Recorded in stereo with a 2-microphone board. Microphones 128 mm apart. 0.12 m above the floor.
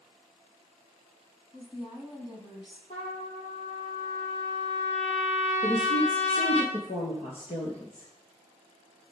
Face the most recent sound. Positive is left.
turn(degrees=50)  # may be behind; listen again after turning